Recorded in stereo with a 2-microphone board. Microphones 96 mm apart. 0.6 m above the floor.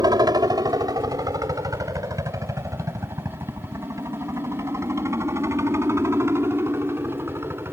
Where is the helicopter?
45° right (ahead or behind); by 7.7 s 25° right (ahead or behind).